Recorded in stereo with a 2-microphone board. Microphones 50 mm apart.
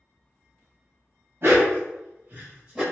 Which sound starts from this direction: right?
A dog barking, at 1.4 s.